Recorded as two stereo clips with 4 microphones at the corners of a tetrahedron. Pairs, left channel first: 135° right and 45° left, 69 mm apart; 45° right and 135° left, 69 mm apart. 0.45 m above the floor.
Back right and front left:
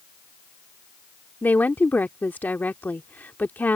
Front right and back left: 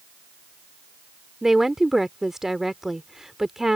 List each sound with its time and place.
1.4 s a woman speaking: 150° right